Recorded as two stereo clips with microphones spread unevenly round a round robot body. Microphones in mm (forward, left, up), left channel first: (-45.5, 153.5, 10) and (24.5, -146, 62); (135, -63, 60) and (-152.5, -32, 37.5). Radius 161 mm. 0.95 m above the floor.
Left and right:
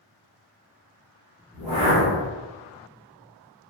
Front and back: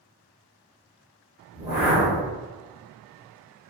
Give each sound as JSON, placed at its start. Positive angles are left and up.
{"t": 1.5, "sound": "a whoosh", "azimuth_deg": 95, "distance_m": 0.7}